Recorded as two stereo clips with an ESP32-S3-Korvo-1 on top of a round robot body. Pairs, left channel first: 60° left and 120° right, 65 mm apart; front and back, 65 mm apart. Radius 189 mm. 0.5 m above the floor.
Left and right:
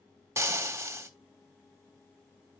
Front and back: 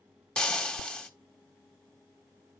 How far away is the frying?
About 1.3 m.